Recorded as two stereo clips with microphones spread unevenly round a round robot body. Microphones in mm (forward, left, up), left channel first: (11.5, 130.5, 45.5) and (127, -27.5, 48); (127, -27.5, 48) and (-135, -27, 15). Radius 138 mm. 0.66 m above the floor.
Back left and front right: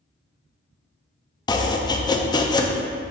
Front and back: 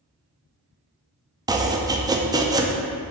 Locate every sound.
1.5 s chopping: 150° left, 0.5 m